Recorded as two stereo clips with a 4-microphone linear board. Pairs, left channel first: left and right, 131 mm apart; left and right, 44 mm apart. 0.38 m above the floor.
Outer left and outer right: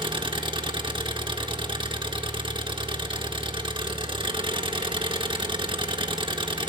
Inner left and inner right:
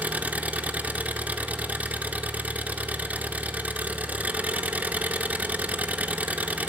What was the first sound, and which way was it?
An engine running, 40° right (ahead or behind).